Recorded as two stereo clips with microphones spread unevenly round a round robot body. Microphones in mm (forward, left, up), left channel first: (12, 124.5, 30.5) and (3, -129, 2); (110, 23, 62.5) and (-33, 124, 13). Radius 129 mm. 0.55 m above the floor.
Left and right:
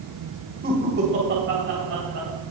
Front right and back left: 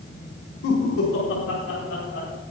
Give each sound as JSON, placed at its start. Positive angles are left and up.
{"t": 0.6, "sound": "laughter", "azimuth_deg": -40, "distance_m": 3.0}